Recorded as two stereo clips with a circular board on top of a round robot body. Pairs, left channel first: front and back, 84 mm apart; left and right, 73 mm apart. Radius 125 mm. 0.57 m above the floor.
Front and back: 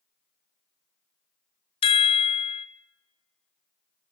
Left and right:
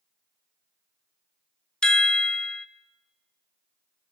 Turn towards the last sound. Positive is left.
turn(degrees=10)